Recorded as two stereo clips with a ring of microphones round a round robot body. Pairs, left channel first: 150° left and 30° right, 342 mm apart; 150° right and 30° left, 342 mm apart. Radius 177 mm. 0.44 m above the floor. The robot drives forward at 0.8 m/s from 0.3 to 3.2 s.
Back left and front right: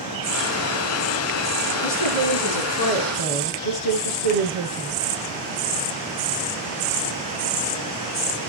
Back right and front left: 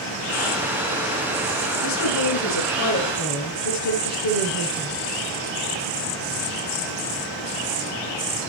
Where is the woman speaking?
170° left, 5.5 m.